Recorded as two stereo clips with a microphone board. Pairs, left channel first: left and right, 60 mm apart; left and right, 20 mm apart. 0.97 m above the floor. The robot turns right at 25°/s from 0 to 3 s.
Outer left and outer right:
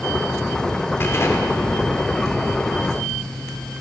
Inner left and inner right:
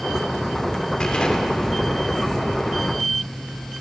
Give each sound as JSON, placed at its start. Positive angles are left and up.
{"t": 1.0, "sound": "an explosion", "azimuth_deg": 40, "distance_m": 3.0}